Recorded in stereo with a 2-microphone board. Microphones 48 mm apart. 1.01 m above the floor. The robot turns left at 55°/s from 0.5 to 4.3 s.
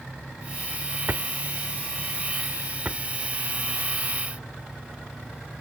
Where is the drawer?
40° right (ahead or behind); by 3.0 s 30° right (ahead or behind).